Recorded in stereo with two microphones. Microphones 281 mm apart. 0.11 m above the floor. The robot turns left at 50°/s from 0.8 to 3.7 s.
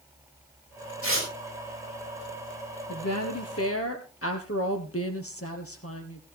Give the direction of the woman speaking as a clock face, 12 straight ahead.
9 o'clock.